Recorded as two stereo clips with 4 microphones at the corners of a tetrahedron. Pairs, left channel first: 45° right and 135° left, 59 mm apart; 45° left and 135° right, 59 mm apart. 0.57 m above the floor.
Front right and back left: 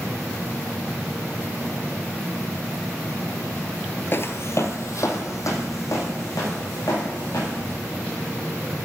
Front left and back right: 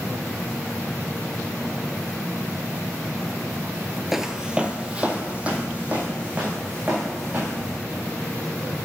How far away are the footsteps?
About 0.6 m.